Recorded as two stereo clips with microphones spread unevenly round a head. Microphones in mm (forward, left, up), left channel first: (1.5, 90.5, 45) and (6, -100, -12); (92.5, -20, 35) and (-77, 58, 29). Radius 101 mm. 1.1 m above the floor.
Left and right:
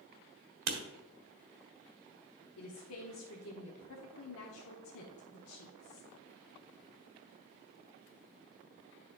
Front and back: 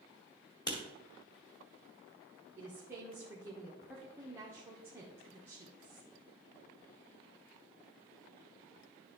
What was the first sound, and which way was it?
Writing, 95° right.